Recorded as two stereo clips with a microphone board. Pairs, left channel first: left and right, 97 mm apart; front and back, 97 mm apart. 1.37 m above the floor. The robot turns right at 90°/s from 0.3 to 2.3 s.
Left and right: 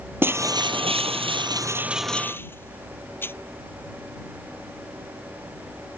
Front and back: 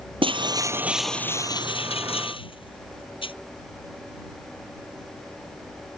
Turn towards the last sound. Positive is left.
turn(degrees=25)